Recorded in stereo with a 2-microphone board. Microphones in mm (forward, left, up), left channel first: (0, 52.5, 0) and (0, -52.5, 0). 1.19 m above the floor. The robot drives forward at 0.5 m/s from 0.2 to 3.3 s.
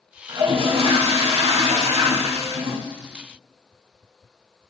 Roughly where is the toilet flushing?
Right.